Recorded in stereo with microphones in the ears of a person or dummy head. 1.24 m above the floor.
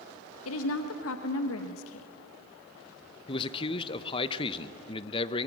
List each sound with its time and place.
0.5 s a woman speaking: 85° left, 1.2 m
3.3 s a man speaking: 25° left (ahead or behind), 0.8 m